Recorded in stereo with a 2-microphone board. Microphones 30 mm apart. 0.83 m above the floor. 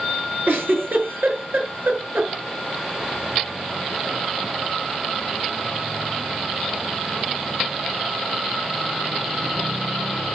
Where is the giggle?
80° right, 6.5 m.